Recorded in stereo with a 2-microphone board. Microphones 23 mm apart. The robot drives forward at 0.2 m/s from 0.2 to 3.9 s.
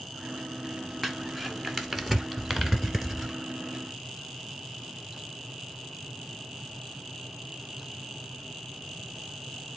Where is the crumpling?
Centre (ahead or behind), 1.0 m.